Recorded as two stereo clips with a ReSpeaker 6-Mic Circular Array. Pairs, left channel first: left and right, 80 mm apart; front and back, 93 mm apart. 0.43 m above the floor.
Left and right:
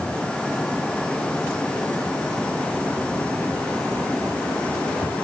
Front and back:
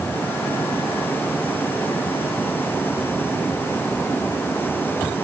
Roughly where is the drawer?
No drawer in this recording.